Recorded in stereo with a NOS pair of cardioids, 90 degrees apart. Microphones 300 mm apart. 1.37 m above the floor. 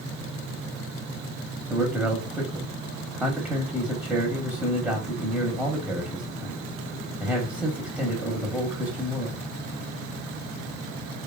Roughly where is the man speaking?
Ahead.